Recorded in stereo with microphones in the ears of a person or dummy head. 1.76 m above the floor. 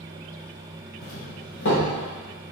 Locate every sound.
1.0 s a doorbell: 65° left (ahead or behind), 3.5 m